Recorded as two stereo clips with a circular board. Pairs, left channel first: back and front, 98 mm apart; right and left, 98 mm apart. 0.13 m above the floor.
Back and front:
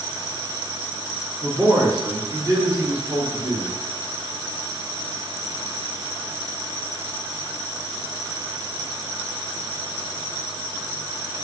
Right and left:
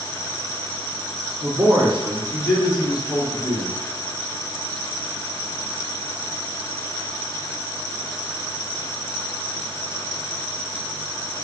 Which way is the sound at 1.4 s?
70° left.